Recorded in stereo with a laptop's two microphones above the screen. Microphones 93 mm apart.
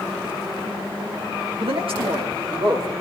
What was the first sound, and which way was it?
A man speaking, 70° right (ahead or behind).